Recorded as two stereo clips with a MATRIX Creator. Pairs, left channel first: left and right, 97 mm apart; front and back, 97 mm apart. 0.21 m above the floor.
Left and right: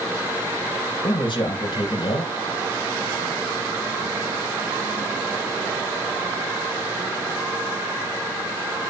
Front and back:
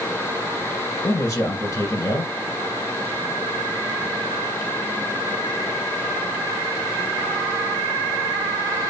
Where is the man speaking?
55° left, 4.5 m.